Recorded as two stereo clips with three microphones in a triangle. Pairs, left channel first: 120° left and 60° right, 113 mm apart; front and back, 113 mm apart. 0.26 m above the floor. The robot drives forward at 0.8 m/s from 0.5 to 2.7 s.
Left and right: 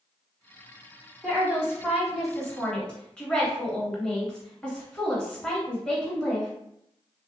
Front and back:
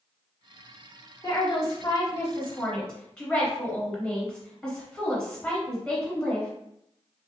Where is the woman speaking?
15° left, 1.8 m; by 6.5 s 65° left, 1.2 m.